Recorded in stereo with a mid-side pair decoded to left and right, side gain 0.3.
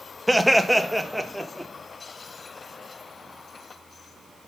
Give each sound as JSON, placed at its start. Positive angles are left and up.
{"t": 0.3, "sound": "laughter", "azimuth_deg": -5, "distance_m": 1.3}